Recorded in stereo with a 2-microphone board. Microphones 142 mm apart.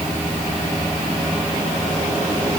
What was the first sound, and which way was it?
Only background noise.